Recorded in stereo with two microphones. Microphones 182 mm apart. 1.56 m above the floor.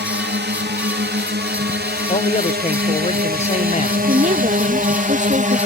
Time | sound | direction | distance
0.0 | a drone | 70° right (ahead or behind) | ?
2.1 | a man speaking | 35° left (ahead or behind) | ?
4.1 | a woman speaking | 40° right (ahead or behind) | ?